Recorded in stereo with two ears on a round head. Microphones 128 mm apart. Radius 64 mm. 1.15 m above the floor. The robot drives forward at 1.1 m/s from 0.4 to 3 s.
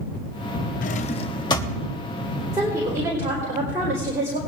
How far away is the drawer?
About 0.6 m.